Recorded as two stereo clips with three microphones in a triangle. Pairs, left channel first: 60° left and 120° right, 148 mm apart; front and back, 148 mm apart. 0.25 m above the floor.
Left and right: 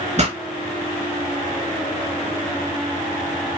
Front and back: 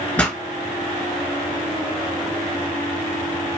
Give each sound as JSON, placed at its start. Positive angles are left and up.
{"t": 0.2, "sound": "a pop", "azimuth_deg": -80, "distance_m": 1.2}